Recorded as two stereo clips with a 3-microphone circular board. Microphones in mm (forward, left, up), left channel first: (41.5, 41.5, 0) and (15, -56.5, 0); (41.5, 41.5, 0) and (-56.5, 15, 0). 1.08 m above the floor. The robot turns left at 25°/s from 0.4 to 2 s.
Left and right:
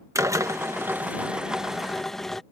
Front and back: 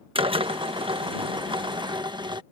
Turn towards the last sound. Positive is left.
turn(degrees=160)